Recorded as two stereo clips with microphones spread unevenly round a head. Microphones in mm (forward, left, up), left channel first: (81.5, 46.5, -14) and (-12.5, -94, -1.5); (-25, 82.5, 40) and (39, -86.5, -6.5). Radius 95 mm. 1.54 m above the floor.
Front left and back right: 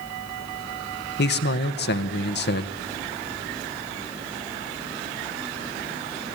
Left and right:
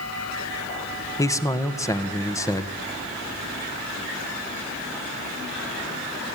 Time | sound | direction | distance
1.2 | a man speaking | 35° left | 1.6 m